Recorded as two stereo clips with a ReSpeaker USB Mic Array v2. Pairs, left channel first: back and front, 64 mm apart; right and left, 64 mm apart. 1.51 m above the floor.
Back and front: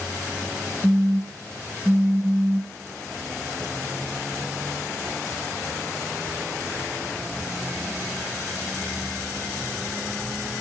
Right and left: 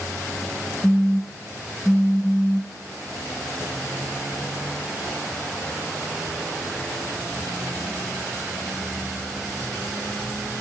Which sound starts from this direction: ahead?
A phone buzzing, at 0.8 s.